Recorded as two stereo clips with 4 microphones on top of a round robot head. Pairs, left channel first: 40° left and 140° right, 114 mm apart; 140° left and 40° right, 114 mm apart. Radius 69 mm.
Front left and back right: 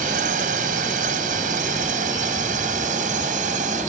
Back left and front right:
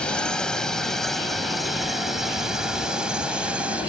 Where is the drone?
140° right; by 3.9 s 120° right.